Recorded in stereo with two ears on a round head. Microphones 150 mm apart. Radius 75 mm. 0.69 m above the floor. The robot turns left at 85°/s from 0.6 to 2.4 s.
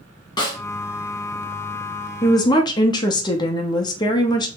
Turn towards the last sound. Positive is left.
turn(degrees=25)  # may be behind; listen again after turning